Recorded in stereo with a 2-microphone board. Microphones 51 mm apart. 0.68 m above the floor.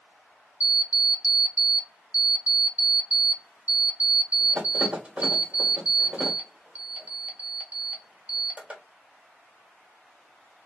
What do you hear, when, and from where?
0.6 s an alarm clock: 25° right (ahead or behind), 1.5 m